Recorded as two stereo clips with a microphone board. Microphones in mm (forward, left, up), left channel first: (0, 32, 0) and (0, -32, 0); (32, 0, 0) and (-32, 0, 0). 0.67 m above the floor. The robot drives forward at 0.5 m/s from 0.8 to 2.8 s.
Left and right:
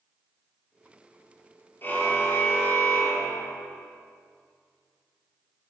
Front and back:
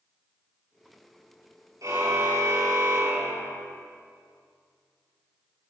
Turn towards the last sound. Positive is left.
turn(degrees=150)